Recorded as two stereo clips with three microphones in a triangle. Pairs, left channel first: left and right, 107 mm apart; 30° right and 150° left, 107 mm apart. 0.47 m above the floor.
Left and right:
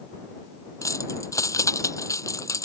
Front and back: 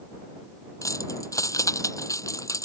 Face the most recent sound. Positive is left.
turn(degrees=30)